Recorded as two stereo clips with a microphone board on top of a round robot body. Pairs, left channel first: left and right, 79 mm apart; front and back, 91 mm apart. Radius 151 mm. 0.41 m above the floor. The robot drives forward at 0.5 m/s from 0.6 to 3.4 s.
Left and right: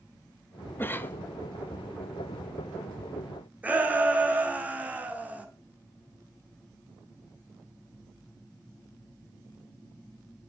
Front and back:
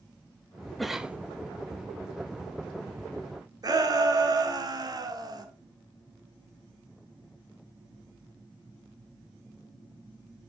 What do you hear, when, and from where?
0.8 s a cough: 85° left, 0.8 m; by 1.2 s 120° left, 0.8 m
3.6 s a shout: 155° right, 1.8 m